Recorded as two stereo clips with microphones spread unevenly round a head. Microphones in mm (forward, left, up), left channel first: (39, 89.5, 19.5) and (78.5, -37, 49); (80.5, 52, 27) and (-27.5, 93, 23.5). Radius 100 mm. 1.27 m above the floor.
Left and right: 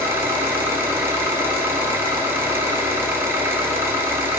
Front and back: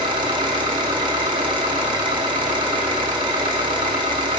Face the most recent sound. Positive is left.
turn(degrees=-140)